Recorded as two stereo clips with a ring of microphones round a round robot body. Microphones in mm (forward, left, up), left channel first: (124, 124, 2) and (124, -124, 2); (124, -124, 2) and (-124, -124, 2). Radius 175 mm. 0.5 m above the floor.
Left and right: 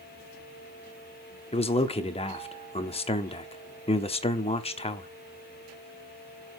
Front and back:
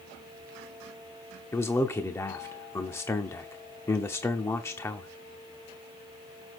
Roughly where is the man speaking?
Left.